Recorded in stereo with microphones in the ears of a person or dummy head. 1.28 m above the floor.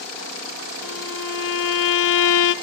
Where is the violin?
75° left (ahead or behind), 0.7 m.